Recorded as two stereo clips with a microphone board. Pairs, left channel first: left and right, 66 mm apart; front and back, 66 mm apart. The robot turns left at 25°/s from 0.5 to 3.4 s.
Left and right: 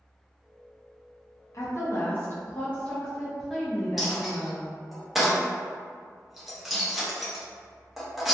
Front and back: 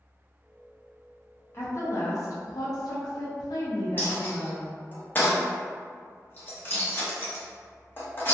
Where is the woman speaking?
45° left, 0.5 m; by 4.6 s straight ahead, 0.5 m.